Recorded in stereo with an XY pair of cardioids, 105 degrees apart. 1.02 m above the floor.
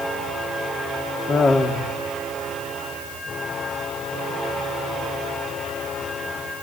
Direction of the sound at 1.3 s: 45° left.